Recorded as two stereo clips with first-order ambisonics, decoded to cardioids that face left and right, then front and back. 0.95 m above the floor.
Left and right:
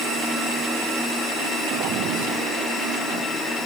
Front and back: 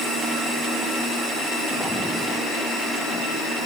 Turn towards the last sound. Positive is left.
No sound to turn to.